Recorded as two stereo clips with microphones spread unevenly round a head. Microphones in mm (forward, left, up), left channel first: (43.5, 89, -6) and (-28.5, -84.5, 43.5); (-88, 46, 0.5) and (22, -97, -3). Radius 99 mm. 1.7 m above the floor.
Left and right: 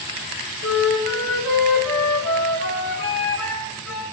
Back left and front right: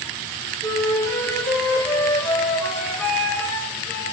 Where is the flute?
45° left, 4.5 m.